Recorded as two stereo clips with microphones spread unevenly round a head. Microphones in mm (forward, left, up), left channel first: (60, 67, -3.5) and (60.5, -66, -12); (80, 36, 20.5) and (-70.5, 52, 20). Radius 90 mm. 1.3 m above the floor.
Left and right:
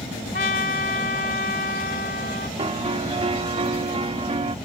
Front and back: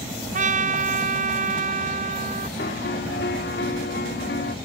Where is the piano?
45° right.